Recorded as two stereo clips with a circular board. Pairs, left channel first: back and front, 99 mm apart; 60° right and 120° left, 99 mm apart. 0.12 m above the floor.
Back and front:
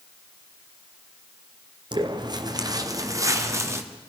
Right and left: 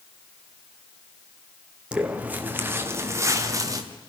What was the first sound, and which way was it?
Footsteps, 40° left.